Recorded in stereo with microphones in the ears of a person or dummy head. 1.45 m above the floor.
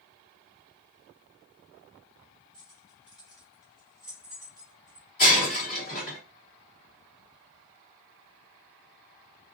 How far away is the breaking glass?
About 1.4 m.